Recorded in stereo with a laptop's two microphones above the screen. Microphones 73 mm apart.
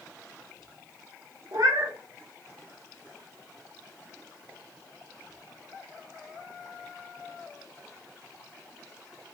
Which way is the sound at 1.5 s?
50° right (ahead or behind).